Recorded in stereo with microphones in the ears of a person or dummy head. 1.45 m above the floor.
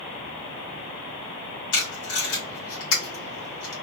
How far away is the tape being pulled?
About 1.5 m.